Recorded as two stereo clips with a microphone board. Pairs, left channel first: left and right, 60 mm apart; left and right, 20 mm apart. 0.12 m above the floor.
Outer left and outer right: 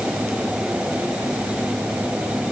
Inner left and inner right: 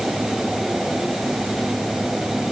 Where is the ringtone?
I don't hear a ringtone.